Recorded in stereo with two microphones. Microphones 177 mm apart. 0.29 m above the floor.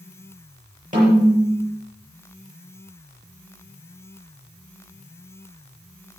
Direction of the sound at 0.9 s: 50° right (ahead or behind).